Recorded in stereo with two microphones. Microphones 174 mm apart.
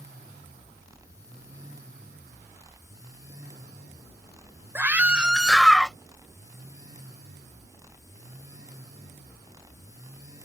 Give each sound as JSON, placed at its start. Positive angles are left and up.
{"t": 4.8, "sound": "a scream", "side_deg": -15}